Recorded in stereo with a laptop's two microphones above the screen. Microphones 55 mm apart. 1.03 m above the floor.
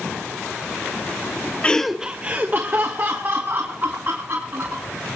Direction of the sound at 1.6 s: 20° left (ahead or behind).